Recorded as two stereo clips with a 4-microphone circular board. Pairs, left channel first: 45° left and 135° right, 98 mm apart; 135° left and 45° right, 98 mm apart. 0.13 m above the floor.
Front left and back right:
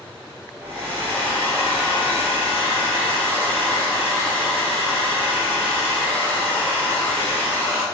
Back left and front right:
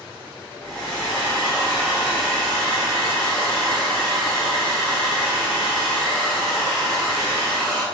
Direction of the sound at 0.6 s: 65° left.